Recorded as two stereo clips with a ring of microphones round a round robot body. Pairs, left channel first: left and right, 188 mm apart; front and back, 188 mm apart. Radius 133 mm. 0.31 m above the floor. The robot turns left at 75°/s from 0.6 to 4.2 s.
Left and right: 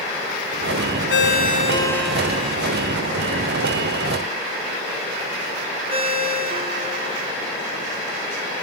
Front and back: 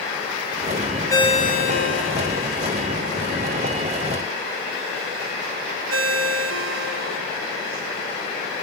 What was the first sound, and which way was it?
A ringtone, 75° left.